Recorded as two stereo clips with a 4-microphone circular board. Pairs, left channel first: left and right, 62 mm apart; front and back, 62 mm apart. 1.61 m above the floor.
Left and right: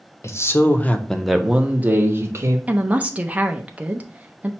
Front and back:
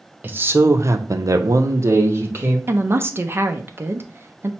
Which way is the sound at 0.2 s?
120° left.